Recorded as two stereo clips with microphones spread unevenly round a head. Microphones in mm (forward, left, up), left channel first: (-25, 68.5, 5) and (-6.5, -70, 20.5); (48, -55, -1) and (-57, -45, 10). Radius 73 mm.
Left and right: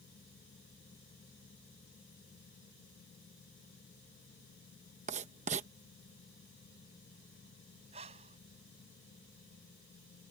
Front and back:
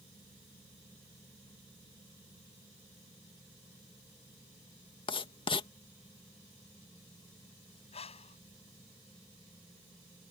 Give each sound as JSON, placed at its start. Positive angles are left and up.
{"t": 5.1, "sound": "writing", "azimuth_deg": -45}
{"t": 7.9, "sound": "breathing", "azimuth_deg": -30}